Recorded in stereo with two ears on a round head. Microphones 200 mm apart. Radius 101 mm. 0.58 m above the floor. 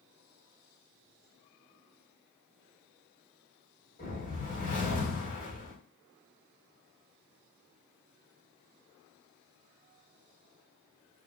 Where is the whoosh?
35° left (ahead or behind), 2 m.